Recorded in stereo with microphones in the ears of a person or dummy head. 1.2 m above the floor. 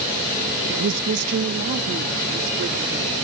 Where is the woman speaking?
70° right (ahead or behind); by 3.1 s 50° right (ahead or behind).